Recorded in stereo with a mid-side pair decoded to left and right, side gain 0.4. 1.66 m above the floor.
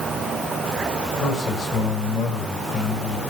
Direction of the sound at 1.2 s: 60° left.